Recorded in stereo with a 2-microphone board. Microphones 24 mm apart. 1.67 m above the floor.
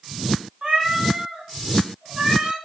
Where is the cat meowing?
35° right (ahead or behind), 1.9 m.